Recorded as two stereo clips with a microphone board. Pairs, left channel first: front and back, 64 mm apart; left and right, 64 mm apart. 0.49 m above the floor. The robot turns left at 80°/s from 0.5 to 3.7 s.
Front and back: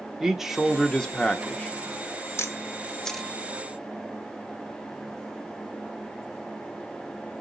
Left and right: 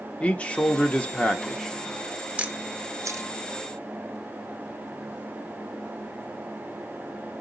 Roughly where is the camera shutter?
Ahead.